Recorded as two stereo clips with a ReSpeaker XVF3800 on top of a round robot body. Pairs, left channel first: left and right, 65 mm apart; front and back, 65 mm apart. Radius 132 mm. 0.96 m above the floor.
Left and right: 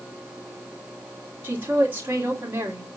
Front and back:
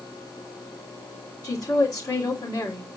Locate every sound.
1.4 s a woman speaking: 30° right, 2.5 m